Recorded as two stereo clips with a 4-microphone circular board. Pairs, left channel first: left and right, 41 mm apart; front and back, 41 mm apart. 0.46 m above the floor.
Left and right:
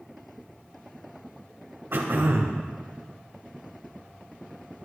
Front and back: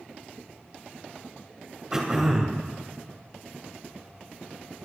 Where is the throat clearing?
105° right, 2.5 m.